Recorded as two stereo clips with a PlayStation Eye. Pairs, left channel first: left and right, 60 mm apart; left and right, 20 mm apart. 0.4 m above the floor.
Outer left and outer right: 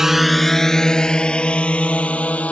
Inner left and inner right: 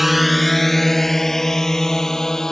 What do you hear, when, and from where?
0.0 s a drone: 5° right (ahead or behind); by 2.5 s 25° left (ahead or behind)